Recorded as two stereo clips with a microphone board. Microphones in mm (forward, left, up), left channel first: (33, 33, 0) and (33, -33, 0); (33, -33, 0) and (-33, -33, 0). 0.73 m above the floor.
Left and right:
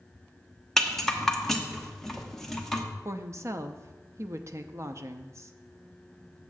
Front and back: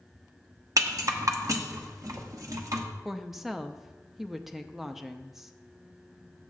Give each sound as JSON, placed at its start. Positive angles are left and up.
{"t": 0.8, "sound": "a rattle", "azimuth_deg": 175, "distance_m": 1.0}
{"t": 3.0, "sound": "a woman speaking", "azimuth_deg": -100, "distance_m": 0.6}